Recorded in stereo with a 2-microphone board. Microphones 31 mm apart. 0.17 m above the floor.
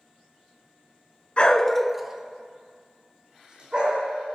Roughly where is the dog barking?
Left.